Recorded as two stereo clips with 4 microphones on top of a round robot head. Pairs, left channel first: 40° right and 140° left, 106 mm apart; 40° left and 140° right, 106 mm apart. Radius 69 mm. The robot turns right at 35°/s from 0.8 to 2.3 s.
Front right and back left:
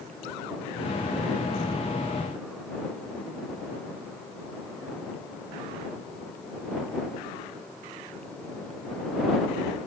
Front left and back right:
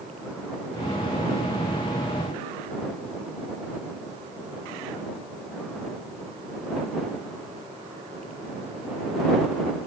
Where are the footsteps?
No footsteps in this recording.